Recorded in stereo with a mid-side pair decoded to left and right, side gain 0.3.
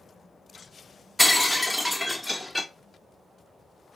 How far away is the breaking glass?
About 0.7 m.